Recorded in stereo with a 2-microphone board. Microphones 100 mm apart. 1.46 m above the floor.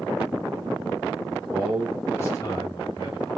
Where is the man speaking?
15° right (ahead or behind), 1.1 m; by 3.3 s 55° left (ahead or behind), 2.5 m.